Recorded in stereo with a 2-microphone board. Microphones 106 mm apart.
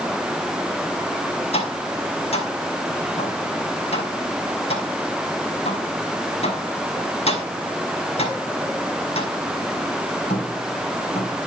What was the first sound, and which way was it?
Tapping, 75° left (ahead or behind).